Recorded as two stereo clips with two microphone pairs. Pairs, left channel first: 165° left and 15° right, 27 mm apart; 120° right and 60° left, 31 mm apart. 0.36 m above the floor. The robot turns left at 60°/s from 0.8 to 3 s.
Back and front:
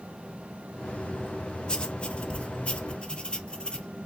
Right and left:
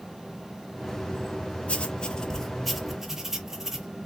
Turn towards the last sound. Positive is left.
turn(degrees=135)